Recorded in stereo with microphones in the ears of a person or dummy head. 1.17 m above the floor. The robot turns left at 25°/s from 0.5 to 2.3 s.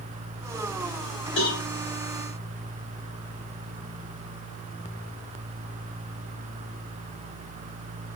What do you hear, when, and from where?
1.4 s a cowbell: 60° left (ahead or behind), 2.5 m; by 1.6 s 65° left (ahead or behind), 2.5 m